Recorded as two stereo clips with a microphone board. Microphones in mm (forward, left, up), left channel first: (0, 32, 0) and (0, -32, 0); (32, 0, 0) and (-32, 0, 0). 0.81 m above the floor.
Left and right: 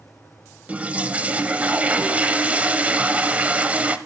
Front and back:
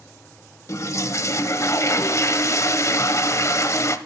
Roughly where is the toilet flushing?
Ahead right.